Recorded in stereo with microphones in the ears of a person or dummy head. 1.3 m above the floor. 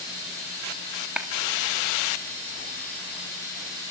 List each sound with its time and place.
1.2 s a clap: 10° right (ahead or behind), 1.6 m